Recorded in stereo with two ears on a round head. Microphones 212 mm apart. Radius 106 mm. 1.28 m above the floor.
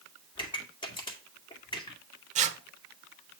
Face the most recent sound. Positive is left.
turn(degrees=-30)  # may be behind; listen again after turning